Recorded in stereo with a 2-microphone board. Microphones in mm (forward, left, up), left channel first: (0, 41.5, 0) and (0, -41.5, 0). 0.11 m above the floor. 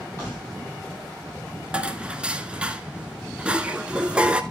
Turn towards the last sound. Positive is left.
turn(degrees=-15)  # may be behind; listen again after turning